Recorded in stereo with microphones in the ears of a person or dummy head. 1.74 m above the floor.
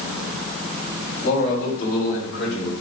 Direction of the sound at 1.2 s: 40° left (ahead or behind).